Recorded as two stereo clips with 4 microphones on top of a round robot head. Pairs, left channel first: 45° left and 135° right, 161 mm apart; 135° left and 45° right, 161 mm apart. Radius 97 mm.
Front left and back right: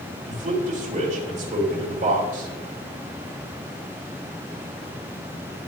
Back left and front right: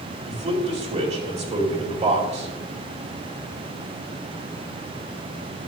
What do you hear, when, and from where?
0.3 s a man speaking: 90° right, 2.5 m